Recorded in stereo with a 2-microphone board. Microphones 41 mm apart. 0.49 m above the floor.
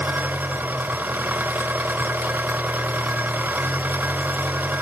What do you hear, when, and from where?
0.0 s an engine running: 60° right (ahead or behind), 1.0 m